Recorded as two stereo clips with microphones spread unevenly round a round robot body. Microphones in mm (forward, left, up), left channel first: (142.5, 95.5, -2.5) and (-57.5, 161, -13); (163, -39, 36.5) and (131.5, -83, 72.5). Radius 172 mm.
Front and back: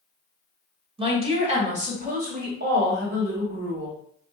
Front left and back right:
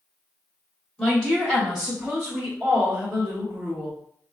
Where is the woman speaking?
100° left, 1.9 m; by 4.0 s 165° right, 1.7 m.